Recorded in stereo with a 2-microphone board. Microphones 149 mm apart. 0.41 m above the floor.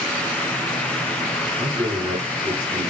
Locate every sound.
1.6 s a man speaking: 35° right (ahead or behind), 4 m